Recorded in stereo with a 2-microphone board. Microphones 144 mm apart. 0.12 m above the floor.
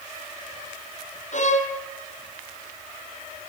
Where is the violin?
55° left (ahead or behind), 2.5 m.